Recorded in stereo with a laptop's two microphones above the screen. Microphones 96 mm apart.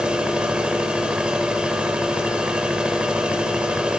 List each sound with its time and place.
0.0 s a machine running: 10° right (ahead or behind), 4.5 m